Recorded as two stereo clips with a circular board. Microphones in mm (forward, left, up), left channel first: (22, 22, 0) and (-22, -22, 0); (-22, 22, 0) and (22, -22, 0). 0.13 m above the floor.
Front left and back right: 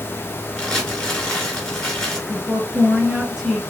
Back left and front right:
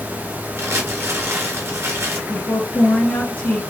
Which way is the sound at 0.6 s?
30° right.